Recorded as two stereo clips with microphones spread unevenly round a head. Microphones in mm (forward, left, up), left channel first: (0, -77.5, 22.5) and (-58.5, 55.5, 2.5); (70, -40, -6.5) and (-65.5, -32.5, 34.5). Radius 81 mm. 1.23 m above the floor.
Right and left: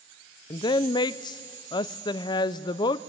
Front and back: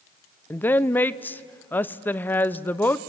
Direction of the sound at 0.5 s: 20° right.